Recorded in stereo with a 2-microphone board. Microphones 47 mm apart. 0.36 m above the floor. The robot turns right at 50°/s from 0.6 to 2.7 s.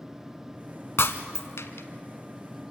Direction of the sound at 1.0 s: 65° left (ahead or behind).